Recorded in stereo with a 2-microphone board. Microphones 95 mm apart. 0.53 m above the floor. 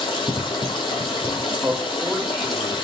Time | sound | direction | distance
0.0 | running water | 65° left (ahead or behind) | 1.4 m
1.6 | a man speaking | 15° right (ahead or behind) | 0.8 m